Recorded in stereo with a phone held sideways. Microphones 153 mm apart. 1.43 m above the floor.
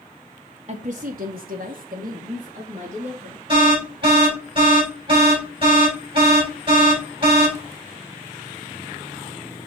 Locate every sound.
0.7 s a woman speaking: 50° right (ahead or behind), 0.7 m
3.5 s an alarm: 35° right (ahead or behind), 5 m